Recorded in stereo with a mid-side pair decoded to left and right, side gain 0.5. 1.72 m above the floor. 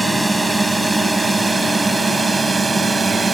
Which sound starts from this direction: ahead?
A drone, at 0.0 s.